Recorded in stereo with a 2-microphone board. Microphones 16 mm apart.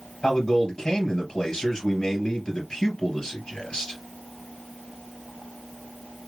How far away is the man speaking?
About 3 m.